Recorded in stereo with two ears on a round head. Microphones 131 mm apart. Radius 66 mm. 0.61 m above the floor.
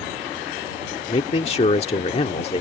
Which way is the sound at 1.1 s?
45° left (ahead or behind).